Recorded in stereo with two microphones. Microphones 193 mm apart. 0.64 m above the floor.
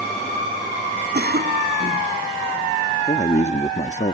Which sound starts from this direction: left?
A man speaking, at 3.1 s.